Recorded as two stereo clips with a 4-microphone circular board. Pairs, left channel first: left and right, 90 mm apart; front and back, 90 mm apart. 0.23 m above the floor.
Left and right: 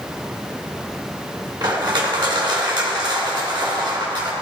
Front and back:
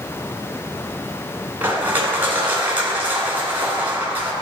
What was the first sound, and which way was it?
Crushing, 115° right.